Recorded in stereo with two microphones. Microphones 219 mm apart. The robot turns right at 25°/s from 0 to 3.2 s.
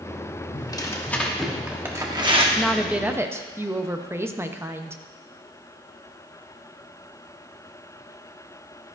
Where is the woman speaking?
5° left (ahead or behind), 0.7 m; by 5.0 s 10° right (ahead or behind), 0.7 m.